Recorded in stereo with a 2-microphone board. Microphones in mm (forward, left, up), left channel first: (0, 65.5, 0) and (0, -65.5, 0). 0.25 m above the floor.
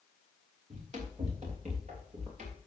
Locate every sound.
0.7 s running footsteps: 60° right (ahead or behind), 4 m